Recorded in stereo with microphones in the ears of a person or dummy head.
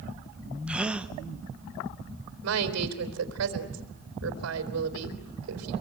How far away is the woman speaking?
About 3.5 m.